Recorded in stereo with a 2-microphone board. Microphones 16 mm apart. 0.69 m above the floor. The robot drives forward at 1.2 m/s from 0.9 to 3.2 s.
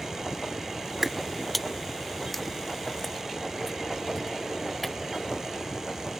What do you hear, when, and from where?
1.0 s footsteps: 15° right (ahead or behind); by 5.0 s 10° left (ahead or behind)